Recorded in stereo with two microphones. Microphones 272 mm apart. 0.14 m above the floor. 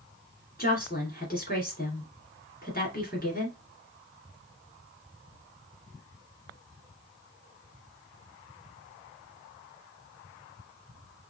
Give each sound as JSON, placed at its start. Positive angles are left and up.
{"t": 0.6, "sound": "a woman speaking", "side_deg": 35, "distance_m": 1.8}